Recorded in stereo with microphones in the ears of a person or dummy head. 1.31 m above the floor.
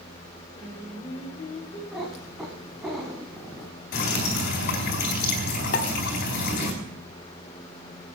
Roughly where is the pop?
Left.